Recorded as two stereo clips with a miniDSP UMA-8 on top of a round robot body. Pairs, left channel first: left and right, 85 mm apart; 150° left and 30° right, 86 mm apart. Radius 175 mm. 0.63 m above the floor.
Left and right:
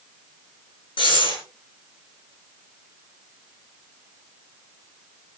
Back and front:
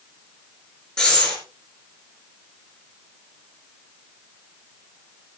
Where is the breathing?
70° left, 6.5 m.